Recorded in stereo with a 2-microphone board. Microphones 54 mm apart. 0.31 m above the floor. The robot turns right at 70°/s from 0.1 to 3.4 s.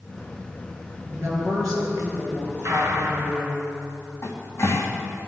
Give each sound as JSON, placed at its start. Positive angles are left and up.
{"t": 1.1, "sound": "a woman speaking", "azimuth_deg": -135, "distance_m": 6.0}
{"t": 2.6, "sound": "a gunshot", "azimuth_deg": -85, "distance_m": 2.5}
{"t": 4.2, "sound": "a cupboard door", "side_deg": 60, "distance_m": 3.0}